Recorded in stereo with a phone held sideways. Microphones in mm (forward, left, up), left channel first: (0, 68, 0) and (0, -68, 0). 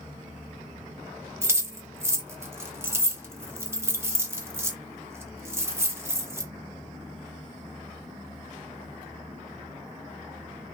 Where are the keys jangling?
15° right (ahead or behind), 0.6 m.